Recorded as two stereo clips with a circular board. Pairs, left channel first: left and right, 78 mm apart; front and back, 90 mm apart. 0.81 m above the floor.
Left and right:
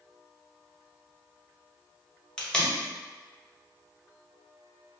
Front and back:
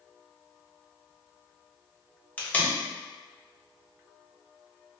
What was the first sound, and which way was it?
Tape being pulled, 30° left.